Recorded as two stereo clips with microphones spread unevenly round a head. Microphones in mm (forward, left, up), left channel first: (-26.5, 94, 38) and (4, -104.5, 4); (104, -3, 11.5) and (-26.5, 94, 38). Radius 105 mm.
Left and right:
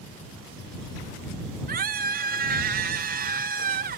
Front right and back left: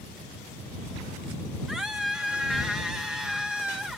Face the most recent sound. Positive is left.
turn(degrees=-130)